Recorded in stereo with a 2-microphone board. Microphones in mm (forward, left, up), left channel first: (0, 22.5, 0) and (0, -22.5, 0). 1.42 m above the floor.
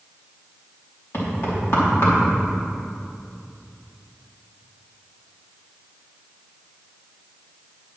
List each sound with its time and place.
1.1 s knocking: 60° left (ahead or behind), 3 m